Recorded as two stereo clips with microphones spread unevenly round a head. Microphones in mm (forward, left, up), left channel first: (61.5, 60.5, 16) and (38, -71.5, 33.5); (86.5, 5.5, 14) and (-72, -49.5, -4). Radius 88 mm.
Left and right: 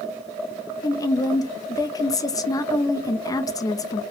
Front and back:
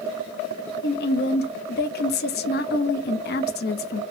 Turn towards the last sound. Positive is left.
turn(degrees=15)